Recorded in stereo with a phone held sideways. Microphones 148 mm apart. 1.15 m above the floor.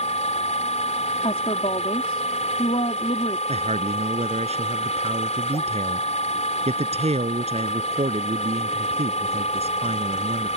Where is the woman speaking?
45° left (ahead or behind).